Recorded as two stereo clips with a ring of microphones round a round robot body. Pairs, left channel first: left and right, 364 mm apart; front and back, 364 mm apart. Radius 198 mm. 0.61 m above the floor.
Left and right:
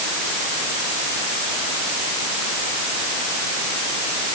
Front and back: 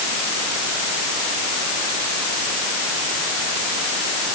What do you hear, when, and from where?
Only background noise.